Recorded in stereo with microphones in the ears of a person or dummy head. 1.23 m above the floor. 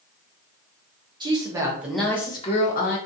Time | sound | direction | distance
1.2 | a woman speaking | 15° right (ahead or behind) | 0.9 m